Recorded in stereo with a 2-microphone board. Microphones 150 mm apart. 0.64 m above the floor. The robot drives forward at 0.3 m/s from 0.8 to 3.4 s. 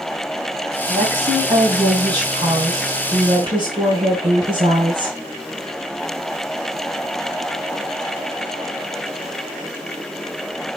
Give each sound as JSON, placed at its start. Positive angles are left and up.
{"t": 0.9, "sound": "a woman speaking", "side_deg": -35, "distance_m": 3.0}